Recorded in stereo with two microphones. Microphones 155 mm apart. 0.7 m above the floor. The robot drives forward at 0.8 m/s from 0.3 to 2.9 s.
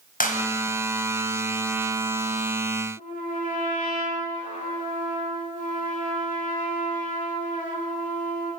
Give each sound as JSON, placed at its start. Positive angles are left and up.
{"t": 0.2, "sound": "a clap", "side_deg": 60, "distance_m": 4.0}
{"t": 3.0, "sound": "a trumpet", "side_deg": 60, "distance_m": 7.5}